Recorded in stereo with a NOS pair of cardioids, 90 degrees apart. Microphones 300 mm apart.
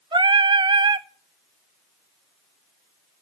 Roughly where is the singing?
Ahead.